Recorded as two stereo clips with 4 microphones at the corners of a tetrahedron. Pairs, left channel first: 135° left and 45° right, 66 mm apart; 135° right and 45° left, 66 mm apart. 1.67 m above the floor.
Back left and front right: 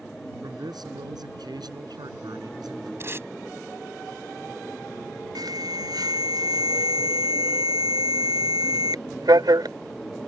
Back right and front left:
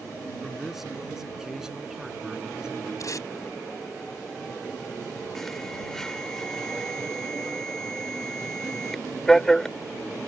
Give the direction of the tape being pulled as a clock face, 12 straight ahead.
3 o'clock.